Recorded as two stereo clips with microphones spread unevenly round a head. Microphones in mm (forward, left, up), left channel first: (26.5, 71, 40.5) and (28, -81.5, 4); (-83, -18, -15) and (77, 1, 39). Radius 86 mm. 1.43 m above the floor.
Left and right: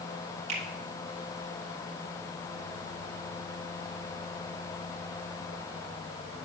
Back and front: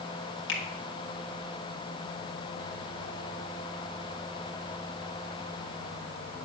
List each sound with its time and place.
0.5 s a finger snap: 150° right, 2.5 m